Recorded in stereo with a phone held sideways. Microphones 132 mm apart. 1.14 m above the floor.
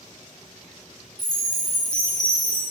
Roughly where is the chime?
Left.